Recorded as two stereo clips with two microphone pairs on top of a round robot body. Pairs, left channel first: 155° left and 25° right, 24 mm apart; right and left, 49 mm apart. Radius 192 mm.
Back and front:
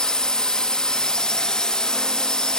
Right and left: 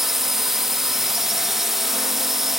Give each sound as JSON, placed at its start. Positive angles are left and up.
{"t": 0.0, "sound": "a drone", "azimuth_deg": 170}